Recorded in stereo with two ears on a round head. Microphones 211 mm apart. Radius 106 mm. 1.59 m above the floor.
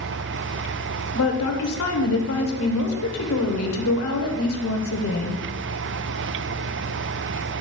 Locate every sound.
1.1 s a woman speaking: 70° left (ahead or behind), 1.3 m